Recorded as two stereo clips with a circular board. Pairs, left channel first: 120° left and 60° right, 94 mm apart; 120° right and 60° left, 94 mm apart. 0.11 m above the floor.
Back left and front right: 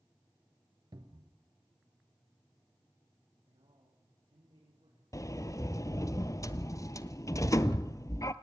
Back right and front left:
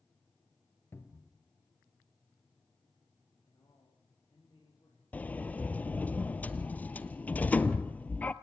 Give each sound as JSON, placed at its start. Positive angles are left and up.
{"t": 0.9, "sound": "a cupboard door", "azimuth_deg": -65, "distance_m": 1.9}
{"t": 3.5, "sound": "a man speaking", "azimuth_deg": -65, "distance_m": 5.5}
{"t": 5.1, "sound": "a sliding door", "azimuth_deg": 170, "distance_m": 0.7}